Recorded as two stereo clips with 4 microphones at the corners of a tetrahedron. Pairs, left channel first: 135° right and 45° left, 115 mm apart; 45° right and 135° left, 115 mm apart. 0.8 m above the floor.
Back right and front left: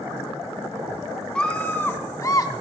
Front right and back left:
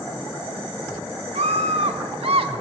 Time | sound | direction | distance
1.4 | a scream | 145° left | 1.9 m